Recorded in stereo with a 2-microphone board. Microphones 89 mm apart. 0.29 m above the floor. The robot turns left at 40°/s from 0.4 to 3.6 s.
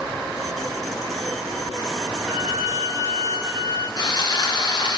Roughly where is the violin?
Ahead.